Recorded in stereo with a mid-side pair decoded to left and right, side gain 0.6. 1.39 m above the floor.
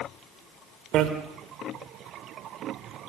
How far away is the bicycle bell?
About 3.5 m.